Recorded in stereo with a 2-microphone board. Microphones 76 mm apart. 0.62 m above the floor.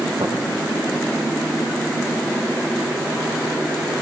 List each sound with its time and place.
0.2 s tapping: 80° right, 8.5 m